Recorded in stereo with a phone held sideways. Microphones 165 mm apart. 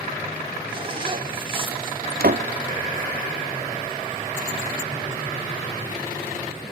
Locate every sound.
0.7 s a zipper: 35° right (ahead or behind), 3 m
2.2 s a door slam: 80° right, 1.0 m